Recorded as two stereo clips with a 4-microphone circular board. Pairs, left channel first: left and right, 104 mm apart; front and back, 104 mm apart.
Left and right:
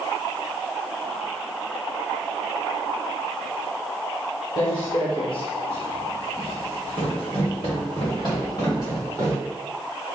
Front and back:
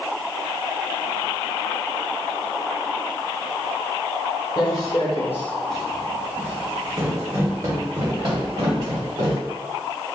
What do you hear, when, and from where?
4.6 s footsteps: 45° left, 1.3 m; by 9.4 s 145° left, 3 m